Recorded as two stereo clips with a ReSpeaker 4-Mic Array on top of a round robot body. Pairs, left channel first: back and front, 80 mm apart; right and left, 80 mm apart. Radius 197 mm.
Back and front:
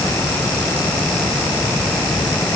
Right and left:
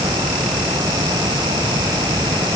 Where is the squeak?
I don't hear a squeak.